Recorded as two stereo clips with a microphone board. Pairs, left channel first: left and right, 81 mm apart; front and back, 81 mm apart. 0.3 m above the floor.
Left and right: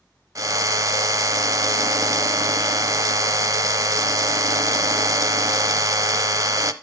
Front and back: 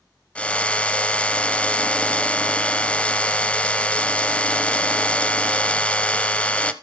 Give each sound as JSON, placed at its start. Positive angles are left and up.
{"t": 0.3, "sound": "a drill", "azimuth_deg": -70, "distance_m": 0.7}